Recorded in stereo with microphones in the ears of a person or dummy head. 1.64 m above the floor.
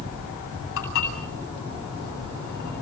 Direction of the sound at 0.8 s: 75° left (ahead or behind).